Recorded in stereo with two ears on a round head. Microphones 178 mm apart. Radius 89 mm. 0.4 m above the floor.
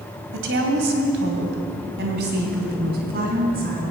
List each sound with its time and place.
0.3 s a woman speaking: 65° right (ahead or behind), 2.5 m; by 3.8 s 50° right (ahead or behind), 4.5 m